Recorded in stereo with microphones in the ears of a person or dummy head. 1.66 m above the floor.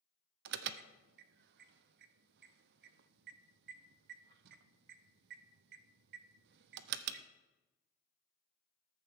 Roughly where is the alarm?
Right.